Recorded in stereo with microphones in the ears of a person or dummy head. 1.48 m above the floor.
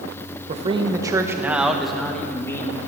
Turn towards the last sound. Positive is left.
turn(degrees=15)  # may be behind; listen again after turning